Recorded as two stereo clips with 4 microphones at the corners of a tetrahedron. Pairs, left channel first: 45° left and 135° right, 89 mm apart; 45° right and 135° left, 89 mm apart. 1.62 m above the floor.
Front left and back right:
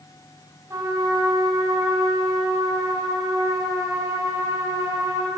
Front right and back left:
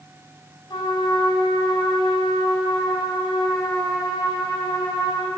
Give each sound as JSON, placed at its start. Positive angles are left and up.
{"t": 0.7, "sound": "a trumpet", "azimuth_deg": -80, "distance_m": 6.0}